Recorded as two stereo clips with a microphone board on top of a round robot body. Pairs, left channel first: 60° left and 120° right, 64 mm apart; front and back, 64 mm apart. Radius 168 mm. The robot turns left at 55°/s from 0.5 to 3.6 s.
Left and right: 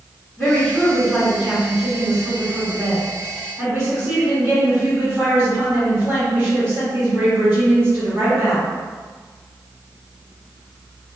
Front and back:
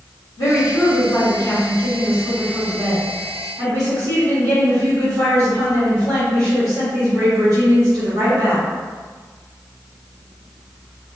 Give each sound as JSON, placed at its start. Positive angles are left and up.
{"t": 0.4, "sound": "a woman speaking", "azimuth_deg": -15, "distance_m": 1.4}